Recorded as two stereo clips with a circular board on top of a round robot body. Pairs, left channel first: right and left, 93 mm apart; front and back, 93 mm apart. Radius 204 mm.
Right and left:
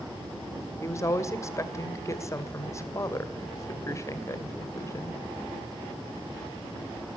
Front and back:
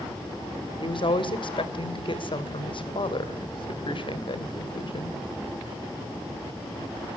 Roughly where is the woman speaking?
Ahead right.